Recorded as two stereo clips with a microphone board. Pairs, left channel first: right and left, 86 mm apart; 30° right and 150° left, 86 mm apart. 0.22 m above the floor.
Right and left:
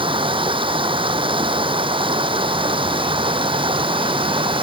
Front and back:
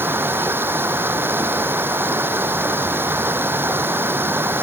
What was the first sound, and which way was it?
Running water, 85° left.